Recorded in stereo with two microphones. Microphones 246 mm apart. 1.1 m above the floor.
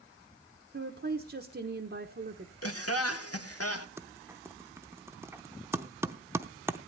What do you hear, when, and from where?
0.7 s a woman speaking: 50° right (ahead or behind), 1.0 m
2.6 s laughter: 70° left (ahead or behind), 1.4 m
4.0 s typing on a keyboard: 10° right (ahead or behind), 0.7 m